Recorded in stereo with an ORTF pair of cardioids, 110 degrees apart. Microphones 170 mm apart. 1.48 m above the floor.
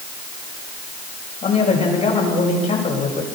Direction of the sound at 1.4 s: 40° left.